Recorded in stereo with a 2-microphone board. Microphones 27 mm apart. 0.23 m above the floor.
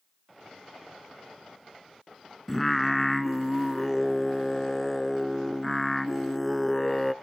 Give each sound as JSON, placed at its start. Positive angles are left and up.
{"t": 2.5, "sound": "singing", "side_deg": 10, "distance_m": 0.8}